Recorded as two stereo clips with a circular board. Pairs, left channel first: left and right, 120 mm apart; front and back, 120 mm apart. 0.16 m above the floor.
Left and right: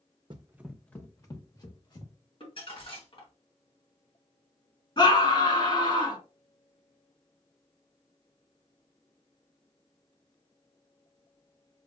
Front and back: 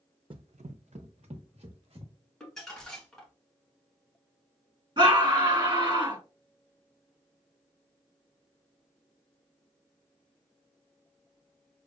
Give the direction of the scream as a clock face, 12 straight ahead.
8 o'clock.